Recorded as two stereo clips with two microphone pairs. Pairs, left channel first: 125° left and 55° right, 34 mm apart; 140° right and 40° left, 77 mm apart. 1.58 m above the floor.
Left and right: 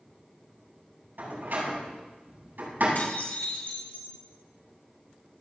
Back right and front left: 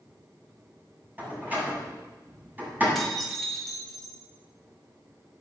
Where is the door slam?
25° right, 8.5 m.